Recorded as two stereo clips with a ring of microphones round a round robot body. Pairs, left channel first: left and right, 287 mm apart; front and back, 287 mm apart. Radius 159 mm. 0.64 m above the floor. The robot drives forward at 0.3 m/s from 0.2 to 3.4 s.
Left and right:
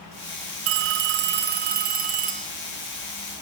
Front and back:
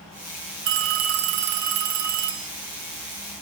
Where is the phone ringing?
135° right, 0.6 m; by 2.5 s 155° right, 1.0 m.